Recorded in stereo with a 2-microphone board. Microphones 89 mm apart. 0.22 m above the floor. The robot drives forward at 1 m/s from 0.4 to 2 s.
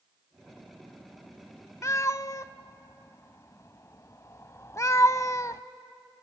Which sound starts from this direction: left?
A cat meowing, at 1.8 s.